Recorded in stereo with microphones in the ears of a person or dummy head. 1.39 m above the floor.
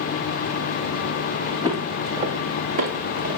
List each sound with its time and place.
1.6 s footsteps: 20° right (ahead or behind), 3.5 m; by 3.4 s 55° right (ahead or behind), 4.5 m